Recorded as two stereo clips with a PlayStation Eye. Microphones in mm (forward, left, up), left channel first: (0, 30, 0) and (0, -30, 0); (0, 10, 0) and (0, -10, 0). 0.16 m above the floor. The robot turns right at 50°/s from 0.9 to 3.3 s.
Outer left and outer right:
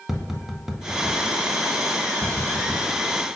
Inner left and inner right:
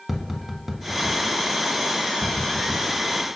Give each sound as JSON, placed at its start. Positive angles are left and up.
{"t": 0.1, "sound": "tapping", "side_deg": -5, "distance_m": 0.5}